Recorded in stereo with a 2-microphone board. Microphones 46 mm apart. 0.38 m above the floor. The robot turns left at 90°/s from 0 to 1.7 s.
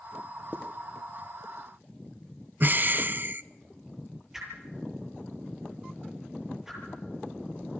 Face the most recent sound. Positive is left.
turn(degrees=-10)  # may be behind; listen again after turning